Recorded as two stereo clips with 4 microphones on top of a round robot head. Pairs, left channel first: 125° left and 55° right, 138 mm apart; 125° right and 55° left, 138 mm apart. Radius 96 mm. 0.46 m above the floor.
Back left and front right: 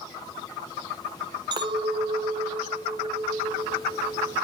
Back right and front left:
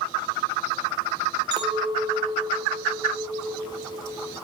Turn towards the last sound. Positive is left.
turn(degrees=0)